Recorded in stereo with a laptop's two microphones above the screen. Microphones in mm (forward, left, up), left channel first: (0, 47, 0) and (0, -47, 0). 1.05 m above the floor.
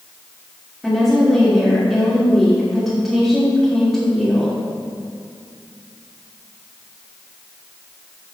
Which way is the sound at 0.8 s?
Centre (ahead or behind).